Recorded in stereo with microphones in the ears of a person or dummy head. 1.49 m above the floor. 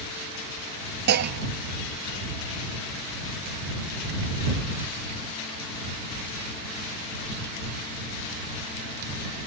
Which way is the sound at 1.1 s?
55° right (ahead or behind).